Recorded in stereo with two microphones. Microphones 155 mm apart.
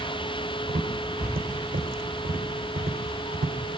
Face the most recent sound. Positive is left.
turn(degrees=-70)  # may be behind; listen again after turning